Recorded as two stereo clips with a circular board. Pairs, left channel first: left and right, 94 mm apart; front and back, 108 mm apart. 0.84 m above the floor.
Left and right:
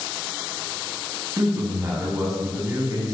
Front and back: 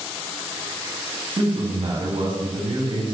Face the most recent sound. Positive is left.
turn(degrees=-140)